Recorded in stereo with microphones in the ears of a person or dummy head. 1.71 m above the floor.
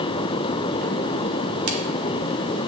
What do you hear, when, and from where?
1.7 s a crack: 80° right, 1.5 m